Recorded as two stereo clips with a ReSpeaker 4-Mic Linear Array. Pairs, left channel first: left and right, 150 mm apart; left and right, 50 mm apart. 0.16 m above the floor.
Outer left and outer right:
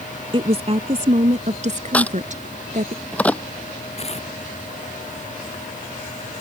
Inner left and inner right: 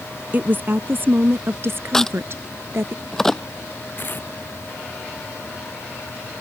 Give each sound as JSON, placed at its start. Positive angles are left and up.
{"t": 0.3, "sound": "a woman speaking", "side_deg": -40}
{"t": 1.9, "sound": "a crack", "side_deg": 10}
{"t": 4.0, "sound": "tearing paper", "side_deg": 45}